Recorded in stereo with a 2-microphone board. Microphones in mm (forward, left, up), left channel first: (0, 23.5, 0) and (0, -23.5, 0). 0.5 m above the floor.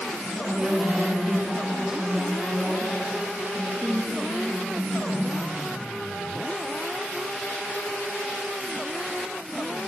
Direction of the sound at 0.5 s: 15° right (ahead or behind).